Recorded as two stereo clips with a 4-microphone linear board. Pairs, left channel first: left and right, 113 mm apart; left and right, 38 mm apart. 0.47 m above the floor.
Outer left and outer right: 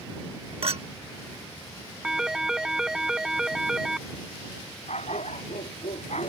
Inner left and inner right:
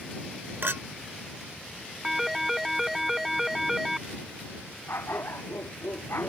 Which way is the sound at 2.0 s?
5° right (ahead or behind).